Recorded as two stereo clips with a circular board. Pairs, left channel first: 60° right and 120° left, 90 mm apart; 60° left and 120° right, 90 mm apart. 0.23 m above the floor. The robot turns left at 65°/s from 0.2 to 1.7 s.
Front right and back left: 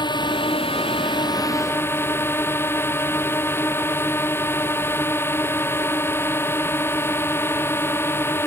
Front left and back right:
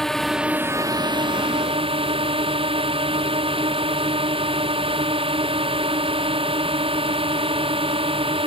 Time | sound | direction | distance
0.0 | a drone | 25° right | ?